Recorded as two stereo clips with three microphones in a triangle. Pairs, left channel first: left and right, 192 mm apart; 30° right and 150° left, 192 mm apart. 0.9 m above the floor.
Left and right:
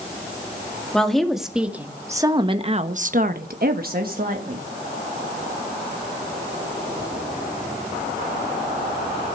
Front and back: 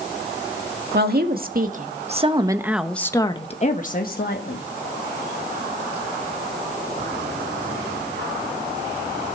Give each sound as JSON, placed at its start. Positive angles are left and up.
{"t": 0.9, "sound": "a woman speaking", "azimuth_deg": 175, "distance_m": 2.5}